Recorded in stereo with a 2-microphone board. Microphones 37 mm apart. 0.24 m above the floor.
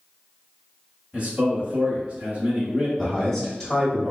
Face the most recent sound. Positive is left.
turn(degrees=5)  # may be behind; listen again after turning